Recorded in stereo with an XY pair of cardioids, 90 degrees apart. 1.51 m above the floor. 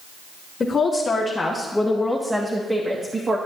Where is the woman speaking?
40° left, 1.8 m; by 3.4 s 40° right, 1.5 m.